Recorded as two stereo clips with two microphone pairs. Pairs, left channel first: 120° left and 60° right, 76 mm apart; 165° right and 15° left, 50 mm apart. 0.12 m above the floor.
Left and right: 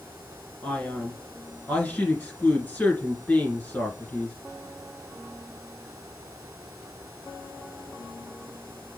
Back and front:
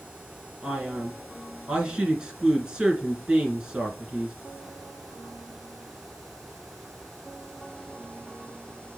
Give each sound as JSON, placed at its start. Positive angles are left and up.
{"t": 0.6, "sound": "a man speaking", "azimuth_deg": 75, "distance_m": 1.7}